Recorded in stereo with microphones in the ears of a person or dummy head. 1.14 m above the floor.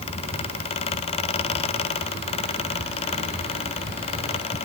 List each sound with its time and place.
0.0 s a fan: 40° left (ahead or behind), 1.7 m